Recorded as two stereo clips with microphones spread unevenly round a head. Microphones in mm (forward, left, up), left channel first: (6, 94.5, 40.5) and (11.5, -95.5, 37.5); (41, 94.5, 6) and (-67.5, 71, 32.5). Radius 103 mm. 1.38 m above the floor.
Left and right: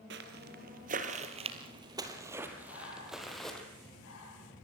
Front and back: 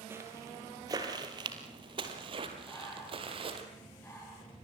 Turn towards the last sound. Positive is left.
turn(degrees=80)